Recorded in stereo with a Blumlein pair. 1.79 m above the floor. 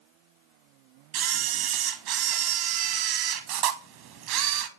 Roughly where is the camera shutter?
Ahead right.